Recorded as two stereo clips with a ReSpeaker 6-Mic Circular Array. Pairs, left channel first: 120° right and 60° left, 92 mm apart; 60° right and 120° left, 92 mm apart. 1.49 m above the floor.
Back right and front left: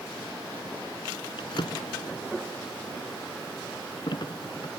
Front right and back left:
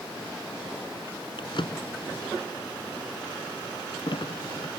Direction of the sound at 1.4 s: 90° right.